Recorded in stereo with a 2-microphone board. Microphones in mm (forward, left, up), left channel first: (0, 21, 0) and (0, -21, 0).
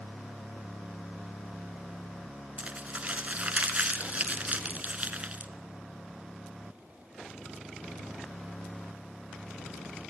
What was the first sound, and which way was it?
Crumpling, 35° right (ahead or behind).